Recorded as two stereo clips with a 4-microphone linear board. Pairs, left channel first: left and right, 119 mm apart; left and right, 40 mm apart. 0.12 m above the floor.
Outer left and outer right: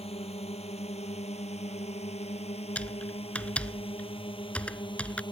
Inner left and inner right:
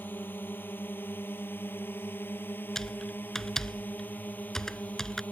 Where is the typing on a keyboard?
10° left (ahead or behind).